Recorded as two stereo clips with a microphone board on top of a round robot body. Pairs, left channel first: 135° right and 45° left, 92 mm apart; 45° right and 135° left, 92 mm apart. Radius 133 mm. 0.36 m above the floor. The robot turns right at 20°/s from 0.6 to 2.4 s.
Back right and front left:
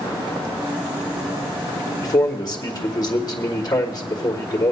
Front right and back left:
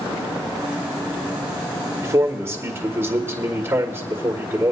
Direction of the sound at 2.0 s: 175° right.